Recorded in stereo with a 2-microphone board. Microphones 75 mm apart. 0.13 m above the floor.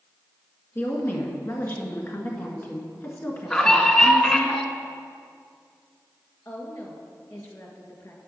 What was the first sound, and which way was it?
A woman speaking, 35° left (ahead or behind).